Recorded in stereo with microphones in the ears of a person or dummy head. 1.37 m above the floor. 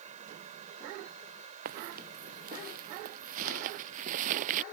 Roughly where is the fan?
Right.